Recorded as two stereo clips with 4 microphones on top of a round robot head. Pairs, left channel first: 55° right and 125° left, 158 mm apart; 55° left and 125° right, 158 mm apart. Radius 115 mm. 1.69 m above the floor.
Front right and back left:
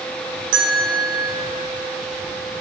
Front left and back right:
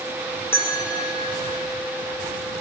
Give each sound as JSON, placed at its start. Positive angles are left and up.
{"t": 0.5, "sound": "a bell", "azimuth_deg": 125, "distance_m": 0.8}